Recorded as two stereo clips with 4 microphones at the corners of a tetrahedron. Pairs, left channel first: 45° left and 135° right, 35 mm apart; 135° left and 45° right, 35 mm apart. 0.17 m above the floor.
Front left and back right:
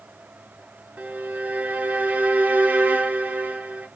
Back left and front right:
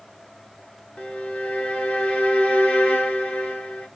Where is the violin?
Straight behind, 1.1 m.